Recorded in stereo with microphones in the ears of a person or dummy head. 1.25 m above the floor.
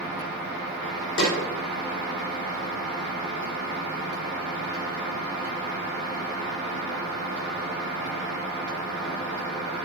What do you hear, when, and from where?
1.2 s a snare drum: 65° left (ahead or behind), 3 m